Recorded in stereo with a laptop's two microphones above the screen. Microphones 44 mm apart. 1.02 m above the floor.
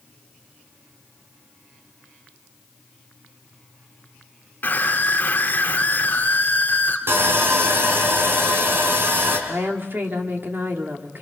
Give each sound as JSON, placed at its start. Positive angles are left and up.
{"t": 4.6, "sound": "a scream", "side_deg": 45, "distance_m": 3.5}
{"t": 7.1, "sound": "sawing", "side_deg": -60, "distance_m": 3.5}
{"t": 9.5, "sound": "a woman speaking", "side_deg": -60, "distance_m": 2.5}